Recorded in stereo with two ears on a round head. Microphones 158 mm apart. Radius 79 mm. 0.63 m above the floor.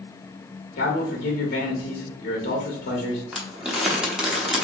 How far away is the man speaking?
About 0.9 m.